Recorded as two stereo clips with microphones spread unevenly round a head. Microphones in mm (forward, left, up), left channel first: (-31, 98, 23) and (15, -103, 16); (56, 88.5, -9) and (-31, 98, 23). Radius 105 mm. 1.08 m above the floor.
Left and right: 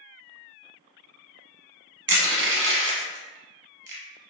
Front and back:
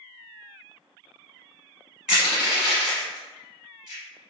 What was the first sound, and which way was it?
Crushing, 90° right.